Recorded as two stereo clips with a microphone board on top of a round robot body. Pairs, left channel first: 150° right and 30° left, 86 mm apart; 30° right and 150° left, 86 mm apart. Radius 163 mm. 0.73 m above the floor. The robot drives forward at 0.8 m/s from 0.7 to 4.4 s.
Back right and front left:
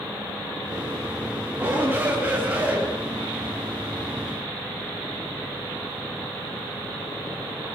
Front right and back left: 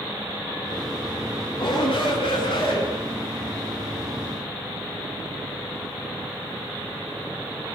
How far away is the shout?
About 9.5 m.